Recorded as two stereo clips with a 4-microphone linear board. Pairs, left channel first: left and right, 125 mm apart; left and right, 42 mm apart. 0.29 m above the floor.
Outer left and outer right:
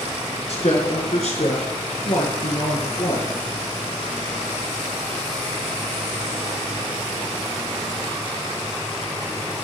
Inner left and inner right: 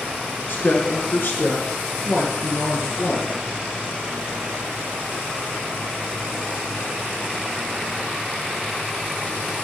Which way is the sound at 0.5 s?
55° left (ahead or behind).